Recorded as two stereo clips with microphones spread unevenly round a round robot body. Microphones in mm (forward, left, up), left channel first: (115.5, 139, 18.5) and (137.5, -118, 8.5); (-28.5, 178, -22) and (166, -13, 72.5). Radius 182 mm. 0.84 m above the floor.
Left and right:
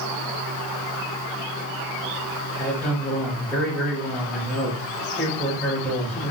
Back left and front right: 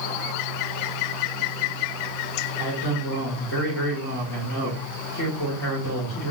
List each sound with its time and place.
2.6 s a man speaking: 175° right, 2 m